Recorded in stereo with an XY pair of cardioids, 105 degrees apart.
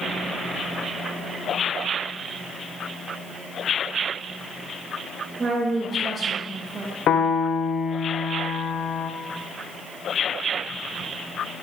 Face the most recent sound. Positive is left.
turn(degrees=65)